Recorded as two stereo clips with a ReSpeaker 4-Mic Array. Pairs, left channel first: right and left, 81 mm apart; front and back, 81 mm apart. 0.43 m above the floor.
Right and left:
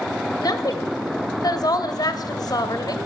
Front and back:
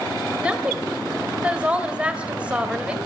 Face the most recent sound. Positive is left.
turn(degrees=-105)